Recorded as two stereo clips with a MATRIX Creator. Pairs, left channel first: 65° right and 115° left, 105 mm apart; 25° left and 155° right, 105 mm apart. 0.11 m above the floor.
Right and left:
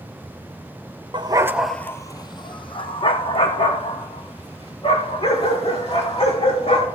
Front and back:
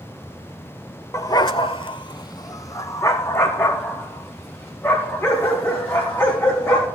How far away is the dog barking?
About 0.6 m.